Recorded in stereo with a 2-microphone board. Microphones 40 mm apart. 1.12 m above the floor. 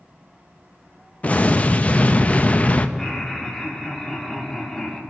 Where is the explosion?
35° left (ahead or behind), 0.6 m.